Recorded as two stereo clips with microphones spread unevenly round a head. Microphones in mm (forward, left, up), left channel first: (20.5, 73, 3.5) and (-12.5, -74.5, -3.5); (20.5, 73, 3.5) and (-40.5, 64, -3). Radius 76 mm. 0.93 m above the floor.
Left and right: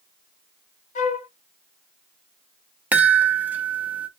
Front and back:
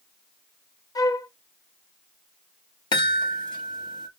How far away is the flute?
About 0.6 m.